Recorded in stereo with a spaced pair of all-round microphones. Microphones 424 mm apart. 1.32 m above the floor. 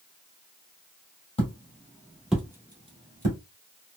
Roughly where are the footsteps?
Centre.